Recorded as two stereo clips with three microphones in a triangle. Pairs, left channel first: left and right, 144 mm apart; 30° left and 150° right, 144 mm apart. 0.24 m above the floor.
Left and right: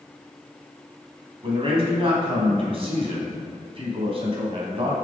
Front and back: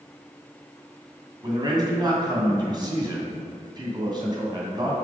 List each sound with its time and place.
1.4 s a man speaking: 105° right, 1.9 m